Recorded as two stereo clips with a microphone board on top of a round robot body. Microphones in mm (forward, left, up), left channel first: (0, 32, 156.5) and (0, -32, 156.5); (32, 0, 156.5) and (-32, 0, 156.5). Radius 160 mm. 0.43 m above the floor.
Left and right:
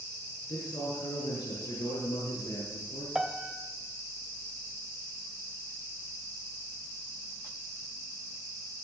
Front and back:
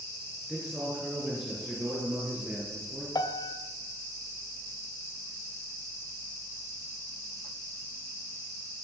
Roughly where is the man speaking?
Left.